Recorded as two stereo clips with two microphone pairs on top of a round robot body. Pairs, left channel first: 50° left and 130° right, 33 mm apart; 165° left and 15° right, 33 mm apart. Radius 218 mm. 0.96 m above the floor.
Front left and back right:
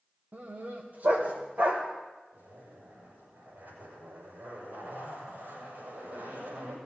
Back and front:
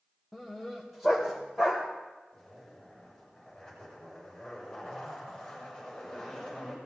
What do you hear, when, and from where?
0.3 s a dog barking: 100° right, 1.5 m; by 1.8 s 90° right, 2.5 m
2.3 s a zipper: 110° right, 6.5 m